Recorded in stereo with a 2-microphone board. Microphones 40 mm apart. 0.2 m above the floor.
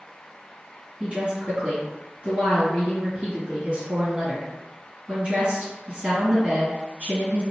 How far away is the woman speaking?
About 1.8 m.